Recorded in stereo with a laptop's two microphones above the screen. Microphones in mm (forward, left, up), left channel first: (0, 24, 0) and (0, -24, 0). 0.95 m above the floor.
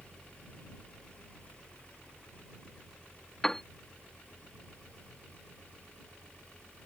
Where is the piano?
10° left (ahead or behind).